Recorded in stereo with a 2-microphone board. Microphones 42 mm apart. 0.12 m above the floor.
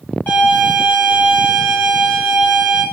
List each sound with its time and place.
0.3 s a violin: 45° left (ahead or behind), 5 m